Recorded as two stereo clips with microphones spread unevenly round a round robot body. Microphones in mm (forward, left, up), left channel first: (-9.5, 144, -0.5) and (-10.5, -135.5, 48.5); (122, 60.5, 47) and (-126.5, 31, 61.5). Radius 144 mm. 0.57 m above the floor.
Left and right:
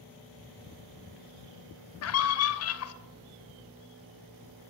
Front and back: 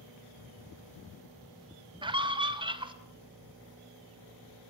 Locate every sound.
2.0 s a scream: 115° left, 2.5 m